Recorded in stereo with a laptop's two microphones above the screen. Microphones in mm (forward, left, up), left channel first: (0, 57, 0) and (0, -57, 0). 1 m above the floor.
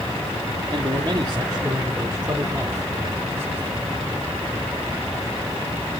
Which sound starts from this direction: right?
A man speaking, at 0.7 s.